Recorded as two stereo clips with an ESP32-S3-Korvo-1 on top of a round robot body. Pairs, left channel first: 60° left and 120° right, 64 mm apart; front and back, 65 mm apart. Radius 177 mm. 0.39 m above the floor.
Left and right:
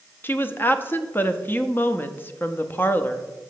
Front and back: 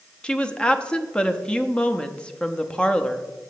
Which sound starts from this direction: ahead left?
A woman speaking, at 0.2 s.